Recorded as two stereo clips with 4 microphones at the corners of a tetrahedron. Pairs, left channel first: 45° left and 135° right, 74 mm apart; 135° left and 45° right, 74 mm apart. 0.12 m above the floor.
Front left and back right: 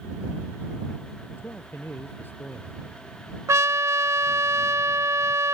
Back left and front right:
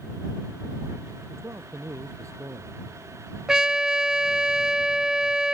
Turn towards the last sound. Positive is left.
turn(degrees=-120)